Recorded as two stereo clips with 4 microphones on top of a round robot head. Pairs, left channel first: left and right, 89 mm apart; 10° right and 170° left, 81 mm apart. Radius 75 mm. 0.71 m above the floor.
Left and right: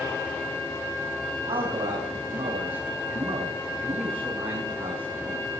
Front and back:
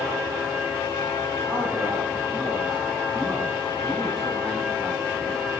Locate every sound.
1.5 s a man speaking: 105° right, 7 m